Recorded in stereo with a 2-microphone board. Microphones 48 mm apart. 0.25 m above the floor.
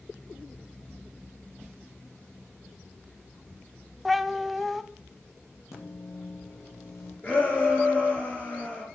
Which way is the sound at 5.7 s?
70° left (ahead or behind).